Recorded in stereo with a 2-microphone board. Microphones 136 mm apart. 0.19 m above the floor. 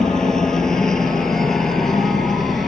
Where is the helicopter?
5° left (ahead or behind); by 2.7 s centre (ahead or behind).